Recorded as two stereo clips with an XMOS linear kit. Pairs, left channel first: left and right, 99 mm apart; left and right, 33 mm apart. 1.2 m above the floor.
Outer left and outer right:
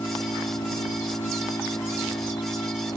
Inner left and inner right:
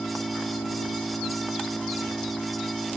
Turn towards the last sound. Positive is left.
turn(degrees=40)  # may be behind; listen again after turning